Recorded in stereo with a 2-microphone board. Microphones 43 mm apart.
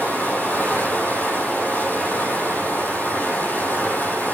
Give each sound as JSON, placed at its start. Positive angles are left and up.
{"t": 0.0, "sound": "running water", "side_deg": 50, "distance_m": 6.5}